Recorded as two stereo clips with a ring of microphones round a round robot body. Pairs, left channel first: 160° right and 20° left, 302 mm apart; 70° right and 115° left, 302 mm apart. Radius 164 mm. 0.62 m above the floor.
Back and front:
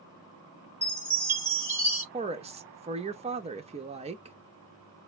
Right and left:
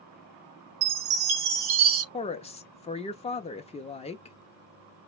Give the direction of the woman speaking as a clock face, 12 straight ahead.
1 o'clock.